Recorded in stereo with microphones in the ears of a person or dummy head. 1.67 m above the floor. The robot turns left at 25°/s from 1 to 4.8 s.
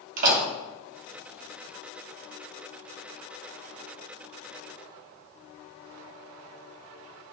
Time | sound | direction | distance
0.2 | a door slam | 45° right (ahead or behind) | 2 m